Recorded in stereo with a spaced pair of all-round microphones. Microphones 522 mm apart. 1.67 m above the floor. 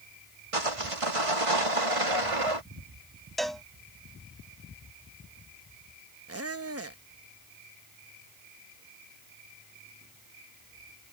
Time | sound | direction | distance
0.5 | sawing | 80° right | ?
3.4 | a cowbell | centre (ahead or behind) | ?
6.3 | a squeak | 25° right (ahead or behind) | ?